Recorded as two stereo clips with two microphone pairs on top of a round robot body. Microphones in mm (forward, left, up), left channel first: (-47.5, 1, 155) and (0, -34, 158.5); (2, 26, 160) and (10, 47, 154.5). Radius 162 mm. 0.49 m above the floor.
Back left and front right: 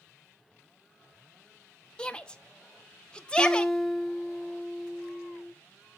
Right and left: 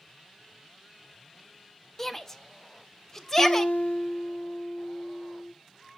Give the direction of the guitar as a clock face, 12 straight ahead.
4 o'clock.